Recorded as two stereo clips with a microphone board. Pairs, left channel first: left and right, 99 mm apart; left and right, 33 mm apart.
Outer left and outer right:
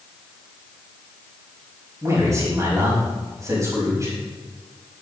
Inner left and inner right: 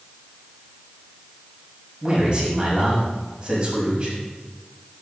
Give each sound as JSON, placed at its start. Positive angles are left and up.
{"t": 2.0, "sound": "a man speaking", "side_deg": -35, "distance_m": 5.0}